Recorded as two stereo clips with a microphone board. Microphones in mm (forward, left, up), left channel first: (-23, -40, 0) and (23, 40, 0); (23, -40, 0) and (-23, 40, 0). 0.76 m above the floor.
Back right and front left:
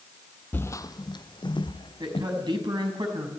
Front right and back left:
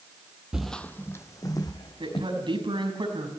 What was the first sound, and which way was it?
Footsteps, 165° right.